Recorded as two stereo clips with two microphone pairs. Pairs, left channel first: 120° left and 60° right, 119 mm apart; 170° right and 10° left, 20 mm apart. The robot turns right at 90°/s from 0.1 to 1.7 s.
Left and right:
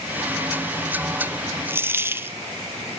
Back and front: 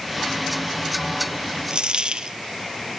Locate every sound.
1.7 s a dropped coin: 5° left, 1.0 m